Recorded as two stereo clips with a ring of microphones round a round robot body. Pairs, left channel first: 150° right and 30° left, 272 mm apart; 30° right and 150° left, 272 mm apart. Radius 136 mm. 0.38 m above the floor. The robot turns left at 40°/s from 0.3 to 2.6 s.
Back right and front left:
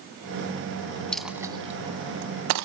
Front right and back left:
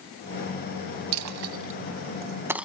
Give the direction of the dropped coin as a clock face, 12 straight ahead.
8 o'clock.